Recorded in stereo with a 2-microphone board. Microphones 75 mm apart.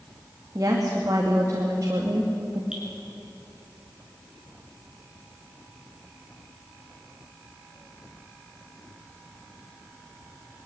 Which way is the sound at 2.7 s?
10° right (ahead or behind).